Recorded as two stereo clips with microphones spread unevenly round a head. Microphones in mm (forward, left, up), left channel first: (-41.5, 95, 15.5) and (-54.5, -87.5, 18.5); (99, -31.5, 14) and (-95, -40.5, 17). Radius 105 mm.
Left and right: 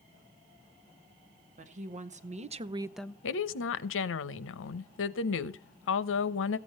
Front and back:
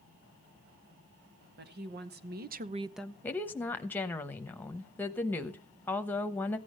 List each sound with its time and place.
1.6 s a woman speaking: 145° right, 2 m; by 3.1 s 35° left, 0.6 m
3.2 s a woman speaking: 85° left, 0.9 m